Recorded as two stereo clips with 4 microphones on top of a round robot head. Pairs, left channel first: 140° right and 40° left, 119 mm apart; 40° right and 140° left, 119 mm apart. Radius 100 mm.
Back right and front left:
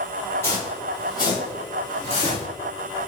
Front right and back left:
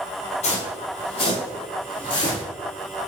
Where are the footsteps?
70° right, 1.2 m; by 2.5 s 95° right, 2.5 m.